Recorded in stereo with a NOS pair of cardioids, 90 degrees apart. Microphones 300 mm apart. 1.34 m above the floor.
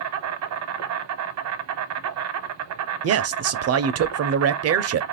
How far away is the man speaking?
About 0.6 m.